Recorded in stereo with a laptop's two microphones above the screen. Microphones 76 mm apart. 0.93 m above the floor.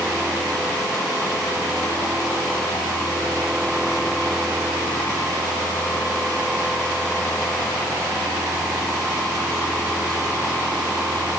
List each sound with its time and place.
Only background noise.